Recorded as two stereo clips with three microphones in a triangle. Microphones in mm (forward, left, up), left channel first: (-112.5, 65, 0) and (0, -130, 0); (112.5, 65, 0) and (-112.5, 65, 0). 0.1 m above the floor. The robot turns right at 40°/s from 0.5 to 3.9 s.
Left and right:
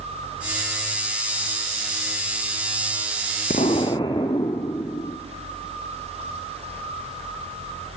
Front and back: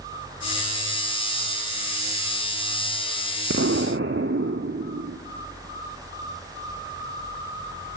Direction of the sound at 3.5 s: 175° left.